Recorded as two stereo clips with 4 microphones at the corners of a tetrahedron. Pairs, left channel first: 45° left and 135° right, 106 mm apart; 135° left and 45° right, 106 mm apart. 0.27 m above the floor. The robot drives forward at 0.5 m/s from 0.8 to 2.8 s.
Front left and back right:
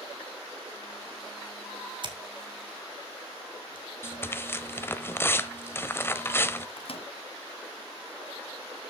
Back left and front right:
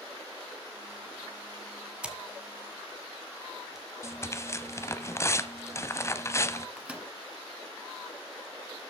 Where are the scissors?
120° right, 1.9 m; by 3.9 s 135° right, 2 m.